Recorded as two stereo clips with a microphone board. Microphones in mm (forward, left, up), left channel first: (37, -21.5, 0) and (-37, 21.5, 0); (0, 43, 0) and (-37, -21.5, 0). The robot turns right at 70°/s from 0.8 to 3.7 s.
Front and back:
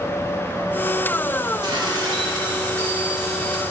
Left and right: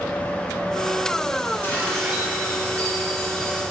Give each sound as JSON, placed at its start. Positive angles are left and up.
{"t": 1.6, "sound": "dishes clattering", "azimuth_deg": 120, "distance_m": 3.0}